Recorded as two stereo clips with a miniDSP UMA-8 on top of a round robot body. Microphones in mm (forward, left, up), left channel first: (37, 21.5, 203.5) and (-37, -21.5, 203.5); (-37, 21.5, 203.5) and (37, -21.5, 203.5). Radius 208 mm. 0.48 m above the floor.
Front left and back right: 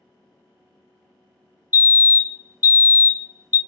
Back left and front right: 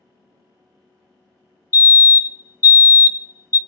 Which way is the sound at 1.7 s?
160° left.